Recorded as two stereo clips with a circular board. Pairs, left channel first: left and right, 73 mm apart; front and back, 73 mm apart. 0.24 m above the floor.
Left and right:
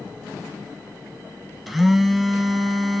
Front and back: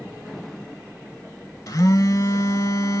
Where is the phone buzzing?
5° right, 0.7 m.